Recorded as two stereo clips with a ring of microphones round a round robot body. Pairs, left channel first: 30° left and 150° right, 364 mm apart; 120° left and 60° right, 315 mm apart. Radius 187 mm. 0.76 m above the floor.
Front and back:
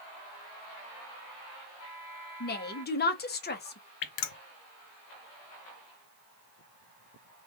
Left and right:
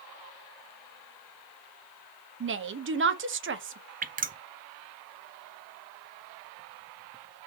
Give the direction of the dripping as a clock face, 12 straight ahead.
12 o'clock.